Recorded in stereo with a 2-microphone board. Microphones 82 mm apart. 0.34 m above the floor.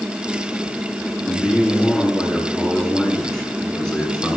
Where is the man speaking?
5° right (ahead or behind), 5.5 m; by 4.4 s 15° left (ahead or behind), 3.5 m.